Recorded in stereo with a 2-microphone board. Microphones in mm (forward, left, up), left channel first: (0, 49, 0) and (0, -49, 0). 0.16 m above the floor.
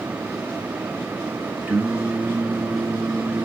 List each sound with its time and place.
1.7 s singing: 15° right (ahead or behind), 1.6 m